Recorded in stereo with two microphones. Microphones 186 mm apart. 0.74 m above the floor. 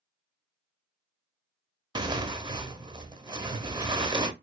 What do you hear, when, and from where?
1.9 s tearing paper: 25° right (ahead or behind), 0.5 m